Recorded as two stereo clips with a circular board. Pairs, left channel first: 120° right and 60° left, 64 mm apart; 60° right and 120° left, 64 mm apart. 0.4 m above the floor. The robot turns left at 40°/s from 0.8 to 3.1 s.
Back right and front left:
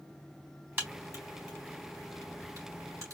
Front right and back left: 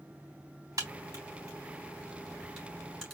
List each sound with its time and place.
0.8 s a crack: 115° left, 3 m; by 3.1 s 25° left, 3 m